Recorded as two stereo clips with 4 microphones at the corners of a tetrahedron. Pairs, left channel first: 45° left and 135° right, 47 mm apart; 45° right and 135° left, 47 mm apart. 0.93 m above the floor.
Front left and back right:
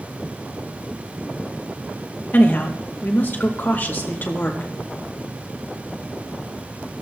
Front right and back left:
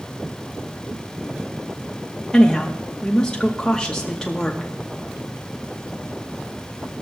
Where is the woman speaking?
20° left, 0.9 m.